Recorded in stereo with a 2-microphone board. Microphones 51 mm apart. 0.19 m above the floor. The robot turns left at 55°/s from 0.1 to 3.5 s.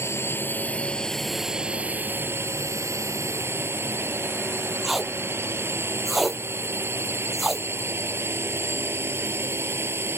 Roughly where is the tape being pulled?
Centre.